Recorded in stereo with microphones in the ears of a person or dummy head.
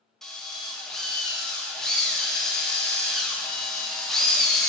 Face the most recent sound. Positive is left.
turn(degrees=0)  # may be behind; listen again after turning